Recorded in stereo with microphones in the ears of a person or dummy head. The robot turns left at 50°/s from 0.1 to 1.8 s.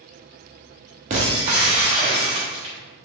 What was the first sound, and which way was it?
Breaking glass, 25° right (ahead or behind).